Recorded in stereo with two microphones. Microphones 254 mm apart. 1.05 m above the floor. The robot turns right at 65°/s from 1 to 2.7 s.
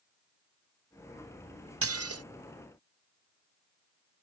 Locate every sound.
1.8 s dishes clattering: 60° right (ahead or behind); by 2.2 s 70° right (ahead or behind)